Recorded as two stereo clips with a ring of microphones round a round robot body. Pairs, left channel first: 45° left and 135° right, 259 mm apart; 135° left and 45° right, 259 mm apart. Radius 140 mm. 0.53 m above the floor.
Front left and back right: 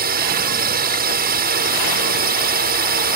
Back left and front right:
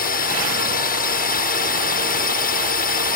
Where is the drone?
Straight behind.